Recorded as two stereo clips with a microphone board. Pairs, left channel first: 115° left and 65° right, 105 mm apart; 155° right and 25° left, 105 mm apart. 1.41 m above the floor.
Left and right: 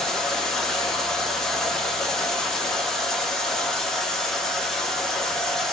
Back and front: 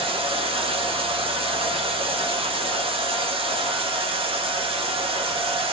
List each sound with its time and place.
0.0 s running water: 30° left, 0.7 m